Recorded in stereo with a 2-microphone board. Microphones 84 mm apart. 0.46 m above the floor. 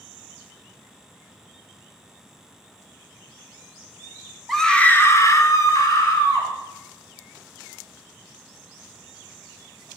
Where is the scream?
Centre (ahead or behind), 1.2 m; by 6.5 s 40° left (ahead or behind), 2.5 m.